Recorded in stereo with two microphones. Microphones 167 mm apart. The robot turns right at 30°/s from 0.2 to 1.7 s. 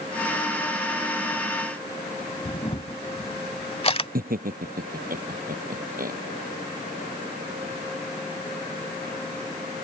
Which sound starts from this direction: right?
Laughter, at 4.2 s.